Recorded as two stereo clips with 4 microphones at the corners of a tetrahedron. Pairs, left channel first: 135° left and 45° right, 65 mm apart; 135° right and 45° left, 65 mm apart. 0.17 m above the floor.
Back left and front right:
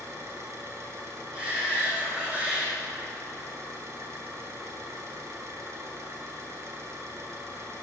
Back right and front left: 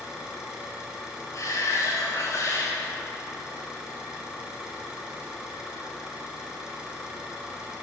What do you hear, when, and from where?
0.0 s an engine running: 30° right, 1.2 m
1.3 s a shout: 115° right, 2.0 m